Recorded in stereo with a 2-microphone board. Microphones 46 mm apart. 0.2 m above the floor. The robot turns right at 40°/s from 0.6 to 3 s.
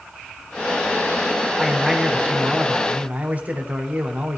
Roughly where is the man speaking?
Behind.